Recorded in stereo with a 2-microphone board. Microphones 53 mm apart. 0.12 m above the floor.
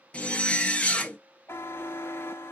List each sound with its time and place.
0.1 s a zipper: 20° left (ahead or behind), 0.6 m
1.5 s a buzzer: 45° left (ahead or behind), 0.6 m